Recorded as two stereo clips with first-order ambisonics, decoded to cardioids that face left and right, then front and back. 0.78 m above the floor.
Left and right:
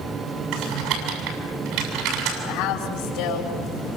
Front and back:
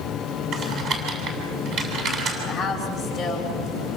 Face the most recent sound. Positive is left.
turn(degrees=90)